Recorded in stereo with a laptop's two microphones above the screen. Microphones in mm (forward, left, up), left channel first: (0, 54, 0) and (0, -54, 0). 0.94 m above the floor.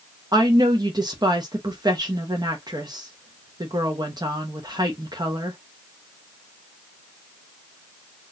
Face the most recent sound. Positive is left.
turn(degrees=-40)  # may be behind; listen again after turning